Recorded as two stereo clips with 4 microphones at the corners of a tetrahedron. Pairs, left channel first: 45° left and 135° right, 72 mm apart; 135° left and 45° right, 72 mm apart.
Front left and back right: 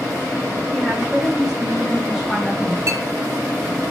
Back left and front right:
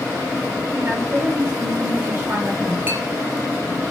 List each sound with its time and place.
0.7 s a woman speaking: 50° right, 0.6 m
2.9 s a clink: 100° right, 0.6 m